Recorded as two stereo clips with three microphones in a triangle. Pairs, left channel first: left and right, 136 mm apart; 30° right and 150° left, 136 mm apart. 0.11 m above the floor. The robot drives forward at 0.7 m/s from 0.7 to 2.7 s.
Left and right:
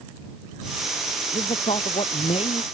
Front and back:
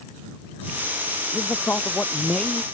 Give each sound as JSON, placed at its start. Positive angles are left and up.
{"t": 1.3, "sound": "a man speaking", "azimuth_deg": 45}